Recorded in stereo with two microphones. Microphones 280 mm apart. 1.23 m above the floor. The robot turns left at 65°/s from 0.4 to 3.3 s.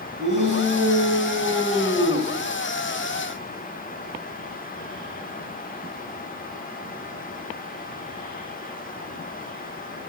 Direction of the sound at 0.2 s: 90° right.